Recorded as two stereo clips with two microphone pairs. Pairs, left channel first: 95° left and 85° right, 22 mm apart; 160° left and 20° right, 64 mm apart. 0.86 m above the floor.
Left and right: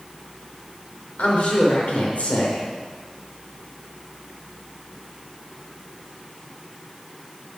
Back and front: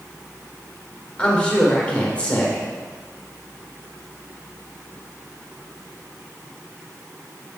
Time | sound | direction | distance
1.2 | a woman speaking | 90° left | 2.5 m